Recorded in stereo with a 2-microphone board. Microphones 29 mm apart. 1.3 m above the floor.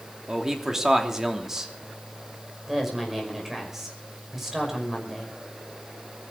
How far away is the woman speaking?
About 5 m.